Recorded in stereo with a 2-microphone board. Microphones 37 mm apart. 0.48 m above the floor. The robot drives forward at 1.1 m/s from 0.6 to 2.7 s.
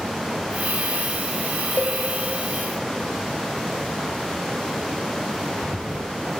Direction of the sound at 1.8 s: 50° left (ahead or behind).